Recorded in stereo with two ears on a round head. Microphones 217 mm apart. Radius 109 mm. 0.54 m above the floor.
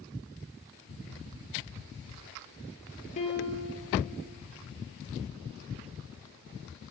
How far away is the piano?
About 3 m.